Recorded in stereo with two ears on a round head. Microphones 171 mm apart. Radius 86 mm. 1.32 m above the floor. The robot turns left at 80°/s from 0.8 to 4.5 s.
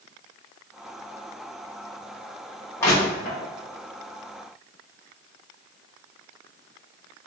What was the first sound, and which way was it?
Crushing, 10° left (ahead or behind).